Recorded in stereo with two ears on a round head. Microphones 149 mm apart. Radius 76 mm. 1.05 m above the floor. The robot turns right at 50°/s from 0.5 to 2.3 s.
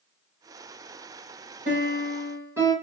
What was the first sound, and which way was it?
A piano, 50° right.